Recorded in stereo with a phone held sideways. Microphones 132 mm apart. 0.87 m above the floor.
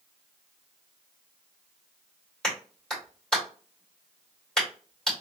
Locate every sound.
2.4 s a clap: 5° left (ahead or behind), 2.5 m